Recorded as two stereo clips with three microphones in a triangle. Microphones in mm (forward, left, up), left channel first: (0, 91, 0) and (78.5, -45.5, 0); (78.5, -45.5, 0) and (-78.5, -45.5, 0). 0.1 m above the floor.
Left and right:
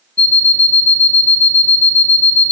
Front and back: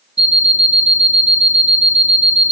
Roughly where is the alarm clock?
Behind.